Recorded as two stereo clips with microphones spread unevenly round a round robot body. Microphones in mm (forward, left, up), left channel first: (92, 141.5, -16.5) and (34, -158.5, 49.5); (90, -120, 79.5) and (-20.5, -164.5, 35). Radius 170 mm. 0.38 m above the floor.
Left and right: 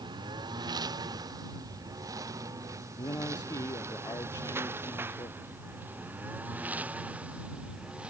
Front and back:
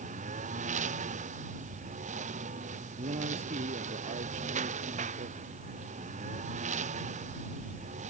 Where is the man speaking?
160° left.